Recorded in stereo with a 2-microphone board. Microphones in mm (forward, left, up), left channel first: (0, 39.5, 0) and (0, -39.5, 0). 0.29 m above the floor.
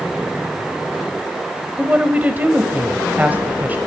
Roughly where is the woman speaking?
Right.